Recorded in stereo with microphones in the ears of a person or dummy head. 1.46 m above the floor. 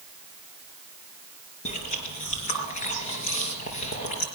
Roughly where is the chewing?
Left.